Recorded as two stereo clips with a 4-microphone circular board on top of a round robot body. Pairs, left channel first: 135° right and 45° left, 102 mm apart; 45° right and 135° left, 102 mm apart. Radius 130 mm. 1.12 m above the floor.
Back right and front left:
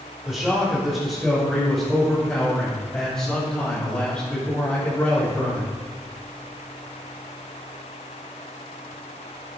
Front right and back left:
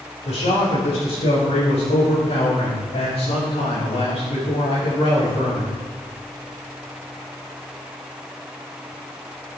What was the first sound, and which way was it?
A man speaking, 45° right.